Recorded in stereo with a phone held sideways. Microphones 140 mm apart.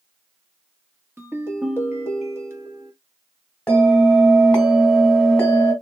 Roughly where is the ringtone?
Centre.